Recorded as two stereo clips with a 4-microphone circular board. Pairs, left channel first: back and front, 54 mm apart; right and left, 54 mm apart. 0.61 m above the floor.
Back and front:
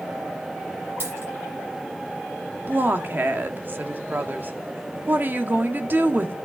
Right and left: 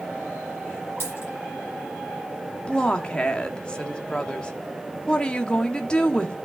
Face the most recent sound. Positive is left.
turn(degrees=-30)